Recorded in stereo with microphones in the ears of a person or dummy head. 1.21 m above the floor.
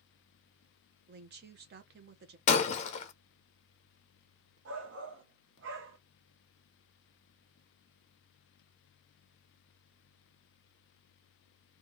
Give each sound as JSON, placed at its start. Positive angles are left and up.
{"t": 1.1, "sound": "a woman speaking", "side_deg": -45, "distance_m": 0.7}
{"t": 2.5, "sound": "breaking glass", "side_deg": 35, "distance_m": 0.5}
{"t": 4.7, "sound": "a shout", "side_deg": -55, "distance_m": 0.9}